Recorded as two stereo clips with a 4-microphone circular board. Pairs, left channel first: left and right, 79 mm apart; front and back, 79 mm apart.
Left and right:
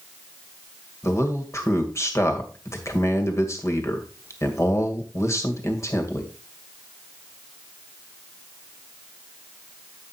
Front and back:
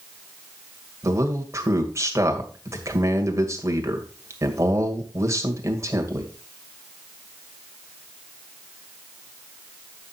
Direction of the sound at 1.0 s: 135° left.